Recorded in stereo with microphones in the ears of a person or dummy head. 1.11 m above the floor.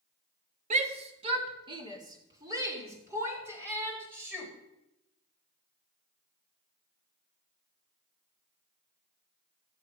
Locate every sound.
0.7 s a shout: 35° right (ahead or behind), 1.5 m; by 4.5 s 10° right (ahead or behind), 4.5 m